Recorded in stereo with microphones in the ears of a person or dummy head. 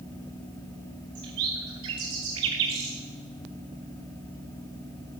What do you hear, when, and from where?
1.1 s a bird: 25° right (ahead or behind), 0.6 m